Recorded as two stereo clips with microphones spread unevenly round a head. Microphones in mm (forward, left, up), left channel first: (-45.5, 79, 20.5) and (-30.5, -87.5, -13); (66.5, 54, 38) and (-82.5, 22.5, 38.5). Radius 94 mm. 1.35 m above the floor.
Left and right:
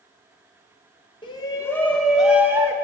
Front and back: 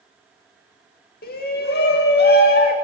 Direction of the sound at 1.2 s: 25° left.